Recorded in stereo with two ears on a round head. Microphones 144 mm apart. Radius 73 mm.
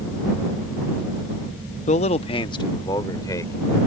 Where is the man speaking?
40° left (ahead or behind); by 3.8 s 20° left (ahead or behind).